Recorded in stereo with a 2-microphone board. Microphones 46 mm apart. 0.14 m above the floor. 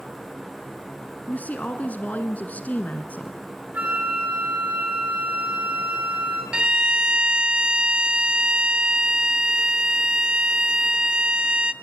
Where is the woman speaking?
35° left (ahead or behind), 1.4 m.